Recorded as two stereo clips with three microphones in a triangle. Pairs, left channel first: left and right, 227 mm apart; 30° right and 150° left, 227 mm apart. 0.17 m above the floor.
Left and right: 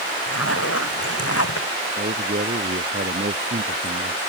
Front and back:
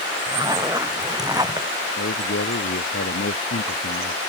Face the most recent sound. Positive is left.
turn(degrees=-45)